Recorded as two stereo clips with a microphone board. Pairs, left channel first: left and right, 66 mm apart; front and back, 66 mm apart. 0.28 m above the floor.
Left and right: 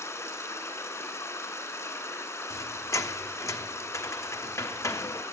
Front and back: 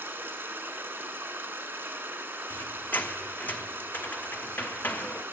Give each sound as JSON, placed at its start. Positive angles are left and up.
{"t": 0.0, "sound": "running water", "azimuth_deg": 130, "distance_m": 1.8}
{"t": 2.5, "sound": "a squeak", "azimuth_deg": 60, "distance_m": 0.7}